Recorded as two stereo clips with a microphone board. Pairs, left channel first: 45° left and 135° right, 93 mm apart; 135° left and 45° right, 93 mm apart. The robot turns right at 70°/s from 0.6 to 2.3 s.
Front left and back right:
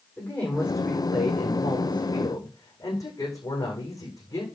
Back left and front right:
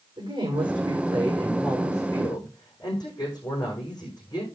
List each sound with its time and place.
0.2 s a woman speaking: 25° right, 8.5 m; by 4.5 s 95° left, 8.5 m